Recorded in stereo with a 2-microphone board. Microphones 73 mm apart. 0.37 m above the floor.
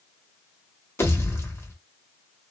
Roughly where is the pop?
Left.